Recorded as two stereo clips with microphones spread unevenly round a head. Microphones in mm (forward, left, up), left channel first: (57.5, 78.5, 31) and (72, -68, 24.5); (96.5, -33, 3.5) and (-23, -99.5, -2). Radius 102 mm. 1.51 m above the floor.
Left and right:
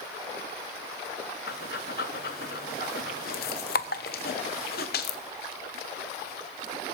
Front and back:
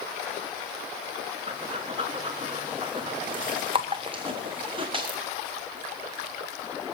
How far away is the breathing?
About 0.9 m.